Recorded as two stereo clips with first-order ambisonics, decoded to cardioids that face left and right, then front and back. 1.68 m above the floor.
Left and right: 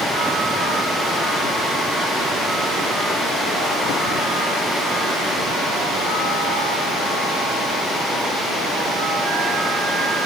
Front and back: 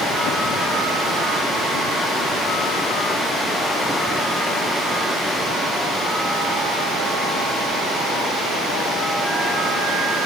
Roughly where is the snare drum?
No snare drum in this recording.